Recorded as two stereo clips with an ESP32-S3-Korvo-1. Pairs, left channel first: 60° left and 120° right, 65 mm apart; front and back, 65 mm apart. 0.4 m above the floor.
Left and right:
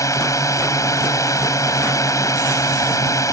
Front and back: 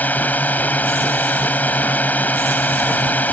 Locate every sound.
0.0 s a drone: 60° left